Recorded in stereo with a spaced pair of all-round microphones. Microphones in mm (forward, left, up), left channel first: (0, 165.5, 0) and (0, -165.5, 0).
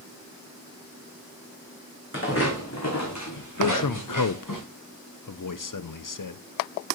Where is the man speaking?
70° left (ahead or behind), 0.6 m.